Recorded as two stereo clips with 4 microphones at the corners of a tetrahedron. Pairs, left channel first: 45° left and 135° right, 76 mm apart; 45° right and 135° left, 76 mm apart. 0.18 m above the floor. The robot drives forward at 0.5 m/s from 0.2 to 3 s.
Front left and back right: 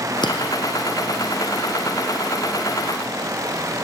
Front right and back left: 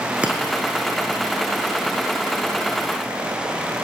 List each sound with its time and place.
0.2 s breaking glass: 60° left, 4.5 m